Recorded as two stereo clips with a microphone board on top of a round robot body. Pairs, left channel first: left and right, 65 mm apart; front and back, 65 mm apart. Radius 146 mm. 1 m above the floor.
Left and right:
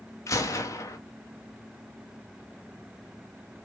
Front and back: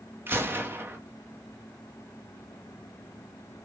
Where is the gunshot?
125° left, 2 m.